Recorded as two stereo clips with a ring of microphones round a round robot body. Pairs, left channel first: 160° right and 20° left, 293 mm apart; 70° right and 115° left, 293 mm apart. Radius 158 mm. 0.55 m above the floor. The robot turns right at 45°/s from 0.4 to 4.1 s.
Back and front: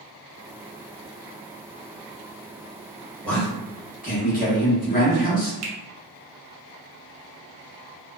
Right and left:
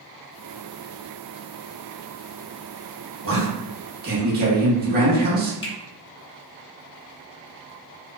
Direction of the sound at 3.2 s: 115° left.